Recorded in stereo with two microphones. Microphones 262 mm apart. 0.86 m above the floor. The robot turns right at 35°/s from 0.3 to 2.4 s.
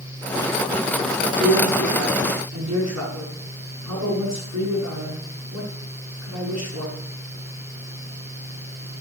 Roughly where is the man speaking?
Behind right.